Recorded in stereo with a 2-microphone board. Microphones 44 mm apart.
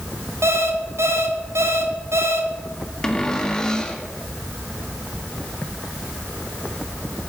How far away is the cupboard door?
About 1.4 m.